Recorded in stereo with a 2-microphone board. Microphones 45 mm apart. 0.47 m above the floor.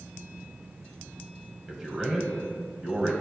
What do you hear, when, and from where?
1.7 s a man speaking: 15° right (ahead or behind), 2 m